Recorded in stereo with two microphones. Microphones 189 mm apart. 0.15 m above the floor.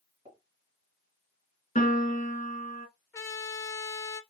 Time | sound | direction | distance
0.2 | a pop | 35° right (ahead or behind) | 2 m
1.8 | a piano | 40° left (ahead or behind) | 1.9 m
3.1 | a trumpet | 15° left (ahead or behind) | 0.8 m